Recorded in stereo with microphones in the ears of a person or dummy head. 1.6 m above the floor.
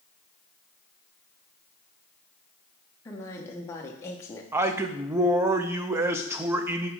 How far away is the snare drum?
No snare drum in this recording.